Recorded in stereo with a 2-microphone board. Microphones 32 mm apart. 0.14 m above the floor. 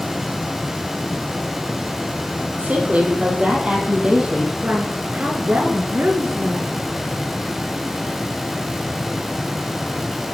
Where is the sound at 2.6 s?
50° right (ahead or behind), 3.5 m; by 4.5 s 25° right (ahead or behind), 4 m.